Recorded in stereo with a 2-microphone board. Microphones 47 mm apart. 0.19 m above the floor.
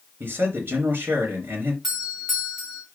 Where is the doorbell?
Centre (ahead or behind), 3 m.